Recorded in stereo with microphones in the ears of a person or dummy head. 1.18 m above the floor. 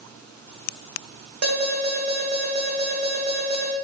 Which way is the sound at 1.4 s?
50° right (ahead or behind).